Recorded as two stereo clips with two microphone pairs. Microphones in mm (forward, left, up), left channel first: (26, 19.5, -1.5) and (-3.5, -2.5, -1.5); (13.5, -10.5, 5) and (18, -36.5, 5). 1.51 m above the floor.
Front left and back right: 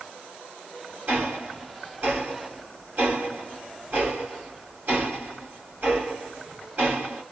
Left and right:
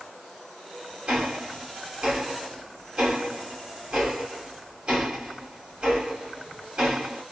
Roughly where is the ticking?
Behind right.